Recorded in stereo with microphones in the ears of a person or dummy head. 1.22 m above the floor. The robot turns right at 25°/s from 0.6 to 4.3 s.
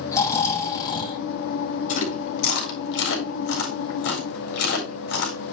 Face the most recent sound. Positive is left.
turn(degrees=75)  # may be behind; listen again after turning